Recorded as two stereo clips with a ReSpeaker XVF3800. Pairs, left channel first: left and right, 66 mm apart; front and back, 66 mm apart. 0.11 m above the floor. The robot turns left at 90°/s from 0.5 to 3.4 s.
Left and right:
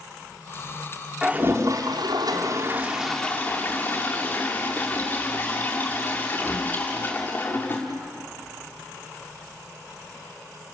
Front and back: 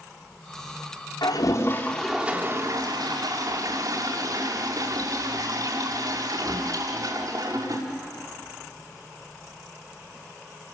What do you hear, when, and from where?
1.2 s a toilet flushing: 10° right, 5.5 m; by 7.8 s 155° left, 5.5 m